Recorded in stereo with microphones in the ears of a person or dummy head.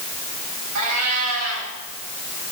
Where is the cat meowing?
80° right, 5 m.